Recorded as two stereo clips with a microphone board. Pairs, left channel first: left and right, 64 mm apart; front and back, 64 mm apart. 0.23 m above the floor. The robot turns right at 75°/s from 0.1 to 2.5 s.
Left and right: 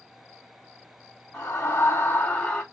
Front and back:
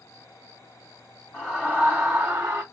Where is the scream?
35° left, 2.0 m; by 2.6 s 125° left, 2.0 m.